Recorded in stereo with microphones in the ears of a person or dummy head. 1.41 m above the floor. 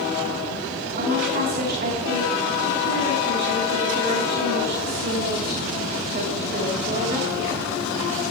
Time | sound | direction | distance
1.0 | a woman speaking | 40° right (ahead or behind) | 4.5 m